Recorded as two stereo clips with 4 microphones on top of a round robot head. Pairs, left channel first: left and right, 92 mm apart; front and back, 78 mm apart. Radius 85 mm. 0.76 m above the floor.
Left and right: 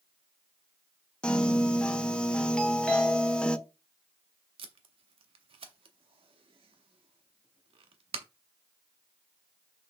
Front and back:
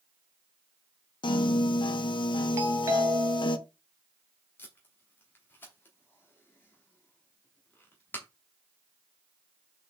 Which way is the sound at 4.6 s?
70° right.